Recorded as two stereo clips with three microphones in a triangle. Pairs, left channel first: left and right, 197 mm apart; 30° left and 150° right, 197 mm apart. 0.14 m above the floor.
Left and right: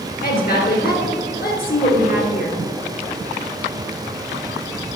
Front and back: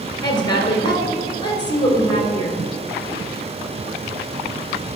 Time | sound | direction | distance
0.2 | a woman speaking | 90° left | 2 m